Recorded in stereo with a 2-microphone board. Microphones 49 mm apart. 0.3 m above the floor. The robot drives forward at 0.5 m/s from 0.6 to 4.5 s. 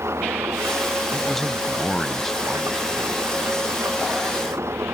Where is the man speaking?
5° left (ahead or behind).